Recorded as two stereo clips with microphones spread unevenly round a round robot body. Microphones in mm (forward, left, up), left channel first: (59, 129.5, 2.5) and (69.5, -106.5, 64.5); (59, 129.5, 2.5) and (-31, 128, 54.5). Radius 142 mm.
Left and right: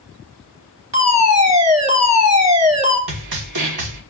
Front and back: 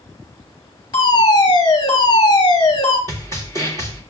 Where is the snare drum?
105° right, 1.7 m.